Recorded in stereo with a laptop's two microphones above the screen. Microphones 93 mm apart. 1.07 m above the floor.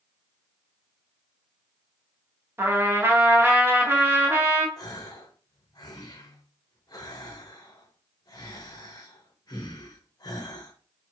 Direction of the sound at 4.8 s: 45° left (ahead or behind).